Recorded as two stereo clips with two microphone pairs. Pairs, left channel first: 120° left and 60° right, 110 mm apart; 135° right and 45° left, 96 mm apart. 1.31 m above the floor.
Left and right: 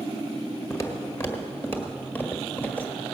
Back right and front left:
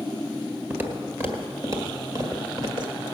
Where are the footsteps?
95° left, 1.5 m; by 3.0 s 50° left, 2 m.